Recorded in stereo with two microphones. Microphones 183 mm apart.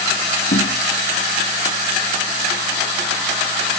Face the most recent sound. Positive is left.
turn(degrees=60)  # may be behind; listen again after turning